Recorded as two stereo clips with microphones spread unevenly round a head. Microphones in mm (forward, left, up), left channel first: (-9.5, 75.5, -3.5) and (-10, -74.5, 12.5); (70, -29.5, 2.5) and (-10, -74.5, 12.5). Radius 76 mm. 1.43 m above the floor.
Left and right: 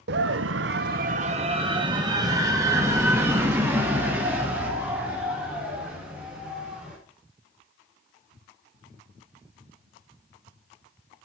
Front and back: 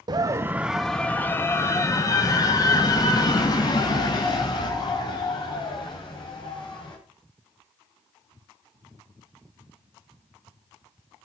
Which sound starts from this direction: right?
A scream, at 0.1 s.